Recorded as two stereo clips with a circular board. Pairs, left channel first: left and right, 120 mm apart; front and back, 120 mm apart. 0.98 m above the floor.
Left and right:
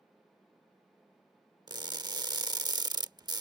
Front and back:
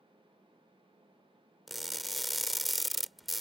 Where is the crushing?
90° right.